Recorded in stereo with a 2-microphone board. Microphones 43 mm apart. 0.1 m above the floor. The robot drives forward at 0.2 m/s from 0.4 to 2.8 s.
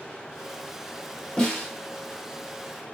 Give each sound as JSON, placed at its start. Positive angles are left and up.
{"t": 1.4, "sound": "a snare drum", "side_deg": 20, "distance_m": 2.5}